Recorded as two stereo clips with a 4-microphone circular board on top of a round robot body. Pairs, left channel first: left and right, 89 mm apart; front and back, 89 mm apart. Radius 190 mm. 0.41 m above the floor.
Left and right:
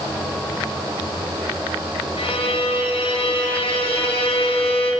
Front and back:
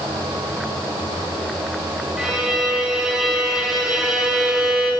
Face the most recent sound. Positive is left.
turn(degrees=95)